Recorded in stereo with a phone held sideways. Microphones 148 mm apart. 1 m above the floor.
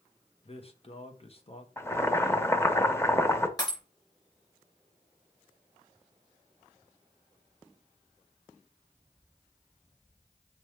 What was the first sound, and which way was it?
A man speaking, 40° left (ahead or behind).